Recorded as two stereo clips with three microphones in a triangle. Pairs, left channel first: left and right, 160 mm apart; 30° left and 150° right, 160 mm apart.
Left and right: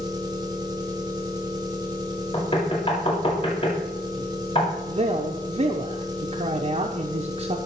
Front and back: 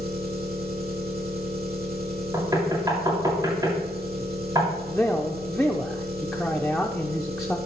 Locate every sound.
0.0 s an engine running: 155° right, 1.8 m
2.3 s knocking: 145° left, 2 m
4.9 s a man speaking: 60° right, 0.8 m